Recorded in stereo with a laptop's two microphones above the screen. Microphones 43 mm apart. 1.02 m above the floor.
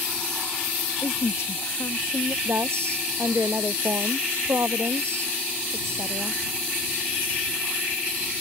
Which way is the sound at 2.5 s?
80° right.